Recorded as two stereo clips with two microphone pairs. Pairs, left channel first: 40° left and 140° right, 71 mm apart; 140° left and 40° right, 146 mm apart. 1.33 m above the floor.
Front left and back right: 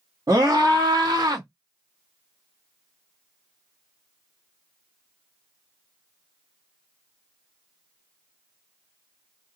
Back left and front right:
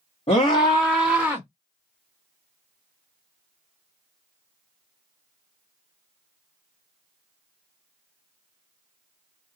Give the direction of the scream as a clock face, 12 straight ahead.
6 o'clock.